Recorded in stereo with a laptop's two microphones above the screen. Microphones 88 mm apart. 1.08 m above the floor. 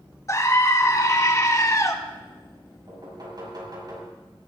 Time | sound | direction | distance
0.3 | a scream | 35° left (ahead or behind) | 1.9 m
2.9 | knocking | 45° right (ahead or behind) | 5.5 m